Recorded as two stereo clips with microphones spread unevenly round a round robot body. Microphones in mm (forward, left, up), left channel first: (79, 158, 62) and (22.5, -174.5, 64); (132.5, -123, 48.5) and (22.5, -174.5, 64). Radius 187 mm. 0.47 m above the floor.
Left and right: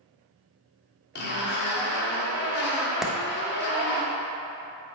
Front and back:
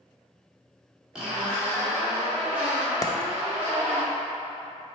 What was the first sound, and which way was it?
A zipper, 115° left.